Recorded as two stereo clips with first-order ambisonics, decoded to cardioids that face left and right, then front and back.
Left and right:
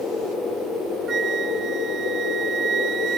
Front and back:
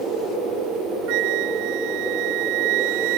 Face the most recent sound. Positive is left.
turn(degrees=-160)